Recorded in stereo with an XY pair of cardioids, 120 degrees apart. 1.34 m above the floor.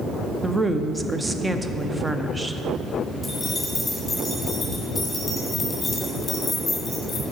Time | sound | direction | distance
0.4 | a woman speaking | 10° right | 0.6 m
3.2 | keys jangling | 15° left | 2.0 m